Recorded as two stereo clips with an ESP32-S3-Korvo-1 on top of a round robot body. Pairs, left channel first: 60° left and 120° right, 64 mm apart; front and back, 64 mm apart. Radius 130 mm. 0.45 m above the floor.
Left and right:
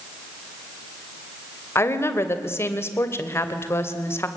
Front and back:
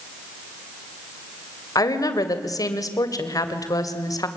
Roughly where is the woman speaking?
Ahead.